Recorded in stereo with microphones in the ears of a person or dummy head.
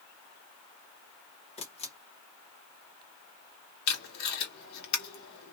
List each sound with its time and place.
1.6 s a camera shutter: 35° left (ahead or behind), 0.9 m
3.9 s tape being pulled: 55° left (ahead or behind), 1.4 m